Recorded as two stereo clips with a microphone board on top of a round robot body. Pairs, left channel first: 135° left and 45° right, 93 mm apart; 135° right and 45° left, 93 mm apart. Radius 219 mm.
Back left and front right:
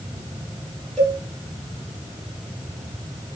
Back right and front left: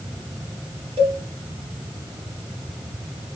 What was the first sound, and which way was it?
A cowbell, 50° left.